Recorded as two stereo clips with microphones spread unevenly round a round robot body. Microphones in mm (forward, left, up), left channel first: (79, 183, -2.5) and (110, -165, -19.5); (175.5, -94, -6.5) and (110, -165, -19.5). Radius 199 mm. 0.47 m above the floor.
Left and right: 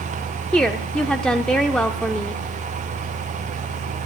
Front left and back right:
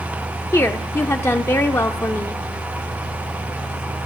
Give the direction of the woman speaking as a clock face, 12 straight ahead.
12 o'clock.